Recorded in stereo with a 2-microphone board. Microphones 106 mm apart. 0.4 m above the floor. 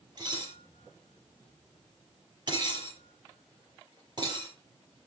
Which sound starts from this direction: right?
Dishes clattering, at 0.2 s.